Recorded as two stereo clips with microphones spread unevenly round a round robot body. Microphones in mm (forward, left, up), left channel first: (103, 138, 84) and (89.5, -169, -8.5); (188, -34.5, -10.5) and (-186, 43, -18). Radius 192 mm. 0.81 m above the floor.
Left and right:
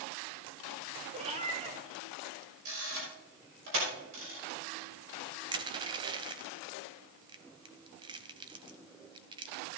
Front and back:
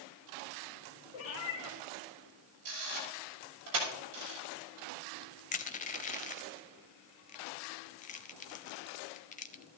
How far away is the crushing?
About 0.6 m.